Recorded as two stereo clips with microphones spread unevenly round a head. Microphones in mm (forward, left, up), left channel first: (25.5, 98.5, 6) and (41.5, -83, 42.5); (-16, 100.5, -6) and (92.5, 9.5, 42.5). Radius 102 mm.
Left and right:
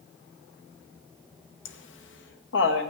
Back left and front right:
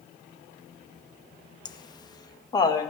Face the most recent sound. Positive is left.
turn(degrees=75)